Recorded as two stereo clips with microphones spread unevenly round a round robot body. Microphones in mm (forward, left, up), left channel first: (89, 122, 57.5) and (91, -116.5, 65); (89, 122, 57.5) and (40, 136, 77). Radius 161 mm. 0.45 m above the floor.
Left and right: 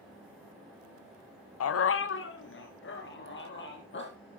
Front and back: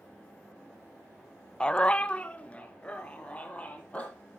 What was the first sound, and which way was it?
A dog barking, 65° left.